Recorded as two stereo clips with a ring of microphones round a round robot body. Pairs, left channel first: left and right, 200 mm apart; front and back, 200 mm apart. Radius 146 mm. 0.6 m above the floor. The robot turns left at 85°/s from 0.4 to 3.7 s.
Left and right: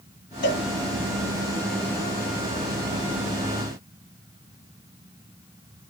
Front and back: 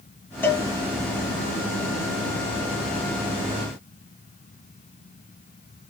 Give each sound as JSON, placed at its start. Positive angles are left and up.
{"t": 0.4, "sound": "a cowbell", "azimuth_deg": 80, "distance_m": 1.6}